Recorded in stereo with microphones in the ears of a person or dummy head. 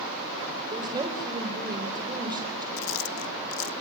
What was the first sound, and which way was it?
A woman speaking, 20° right (ahead or behind).